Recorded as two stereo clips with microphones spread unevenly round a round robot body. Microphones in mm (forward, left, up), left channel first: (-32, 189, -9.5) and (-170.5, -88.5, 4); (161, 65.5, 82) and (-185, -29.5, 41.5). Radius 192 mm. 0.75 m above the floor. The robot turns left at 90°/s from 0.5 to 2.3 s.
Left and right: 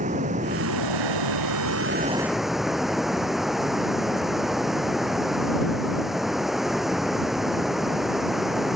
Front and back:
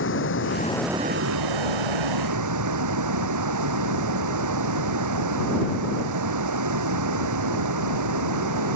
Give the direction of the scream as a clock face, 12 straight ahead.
No scream in this recording.